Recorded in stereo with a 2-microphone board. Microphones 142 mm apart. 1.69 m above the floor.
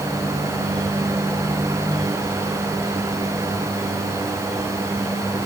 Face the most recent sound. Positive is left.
No sound to turn to.